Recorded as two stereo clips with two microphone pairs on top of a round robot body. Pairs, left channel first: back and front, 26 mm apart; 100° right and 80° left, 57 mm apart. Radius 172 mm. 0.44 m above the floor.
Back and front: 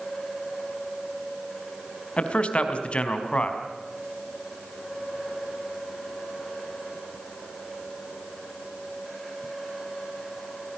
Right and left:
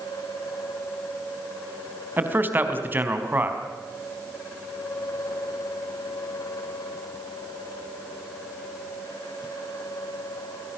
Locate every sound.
2.2 s a man speaking: 140° left, 4 m